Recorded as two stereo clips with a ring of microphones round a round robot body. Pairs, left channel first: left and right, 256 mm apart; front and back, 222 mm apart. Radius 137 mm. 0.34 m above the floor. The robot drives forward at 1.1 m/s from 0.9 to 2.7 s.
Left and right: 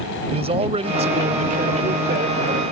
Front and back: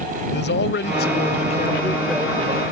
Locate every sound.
0.3 s a man speaking: 25° right; by 2.6 s 135° right